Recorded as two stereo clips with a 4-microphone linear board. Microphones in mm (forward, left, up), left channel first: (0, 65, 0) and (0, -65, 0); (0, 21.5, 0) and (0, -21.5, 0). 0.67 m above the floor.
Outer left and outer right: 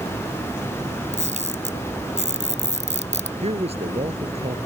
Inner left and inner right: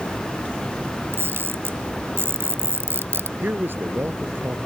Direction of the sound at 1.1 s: 65° right (ahead or behind).